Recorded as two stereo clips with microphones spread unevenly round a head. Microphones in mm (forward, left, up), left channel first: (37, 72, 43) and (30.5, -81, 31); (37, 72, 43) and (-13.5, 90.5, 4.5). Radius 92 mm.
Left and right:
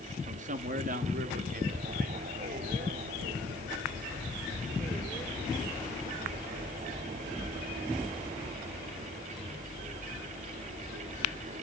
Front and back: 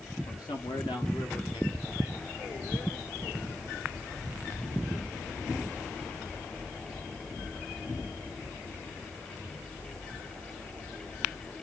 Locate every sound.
0.3 s a man speaking: 55° right, 1.8 m; by 3.4 s 75° right, 5.5 m